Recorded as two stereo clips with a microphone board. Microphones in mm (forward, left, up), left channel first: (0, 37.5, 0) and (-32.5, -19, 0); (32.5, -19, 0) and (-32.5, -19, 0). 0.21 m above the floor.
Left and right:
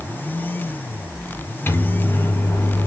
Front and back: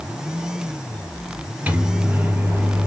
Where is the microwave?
115° left, 4 m.